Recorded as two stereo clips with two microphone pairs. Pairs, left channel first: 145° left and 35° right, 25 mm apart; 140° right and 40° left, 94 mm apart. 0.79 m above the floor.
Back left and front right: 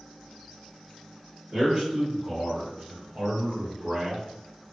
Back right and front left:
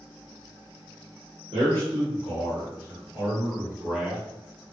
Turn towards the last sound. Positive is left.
turn(degrees=-50)